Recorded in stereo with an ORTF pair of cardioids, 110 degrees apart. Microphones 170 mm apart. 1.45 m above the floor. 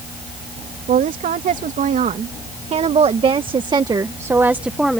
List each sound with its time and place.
0.9 s a woman speaking: 50° right; by 5.0 s straight ahead